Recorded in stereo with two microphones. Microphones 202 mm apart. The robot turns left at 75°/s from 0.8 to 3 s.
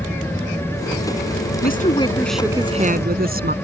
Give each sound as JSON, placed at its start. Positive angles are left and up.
{"t": 0.0, "sound": "an aircraft", "azimuth_deg": 170}
{"t": 1.6, "sound": "a woman speaking", "azimuth_deg": 55}